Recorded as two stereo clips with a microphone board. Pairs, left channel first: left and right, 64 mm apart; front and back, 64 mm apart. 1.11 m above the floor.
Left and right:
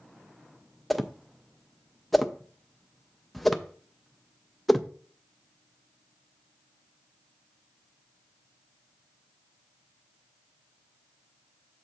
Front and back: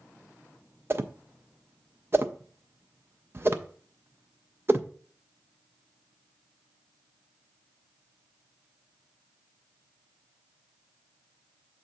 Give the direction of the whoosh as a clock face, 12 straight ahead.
6 o'clock.